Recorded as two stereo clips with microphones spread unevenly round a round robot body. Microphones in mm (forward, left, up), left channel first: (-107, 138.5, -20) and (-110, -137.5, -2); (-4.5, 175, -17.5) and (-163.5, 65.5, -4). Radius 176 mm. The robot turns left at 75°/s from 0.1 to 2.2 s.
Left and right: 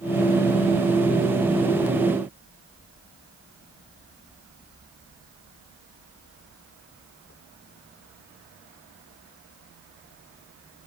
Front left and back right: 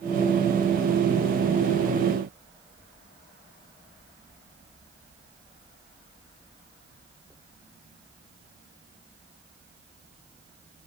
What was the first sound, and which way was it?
Only background noise.